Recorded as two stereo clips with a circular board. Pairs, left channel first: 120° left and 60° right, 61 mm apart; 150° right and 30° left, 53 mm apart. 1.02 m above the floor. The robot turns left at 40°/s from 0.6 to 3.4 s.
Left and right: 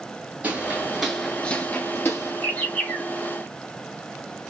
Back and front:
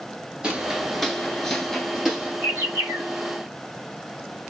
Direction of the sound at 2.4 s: 65° left.